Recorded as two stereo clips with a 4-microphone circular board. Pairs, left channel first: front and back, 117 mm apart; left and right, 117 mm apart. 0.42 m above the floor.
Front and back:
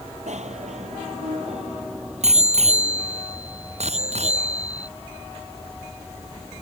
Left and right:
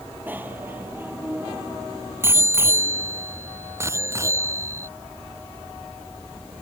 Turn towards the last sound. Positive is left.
turn(degrees=-155)